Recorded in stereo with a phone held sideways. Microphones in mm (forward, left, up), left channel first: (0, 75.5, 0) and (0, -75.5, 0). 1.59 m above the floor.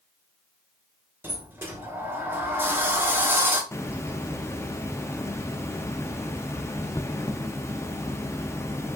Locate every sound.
1.2 s a sliding door: 15° right (ahead or behind), 1.1 m
3.7 s a hiss: 20° left (ahead or behind), 0.6 m